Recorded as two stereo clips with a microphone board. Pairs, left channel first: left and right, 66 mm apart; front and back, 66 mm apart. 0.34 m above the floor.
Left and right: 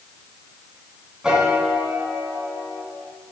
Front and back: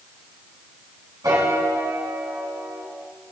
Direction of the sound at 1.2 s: 170° right.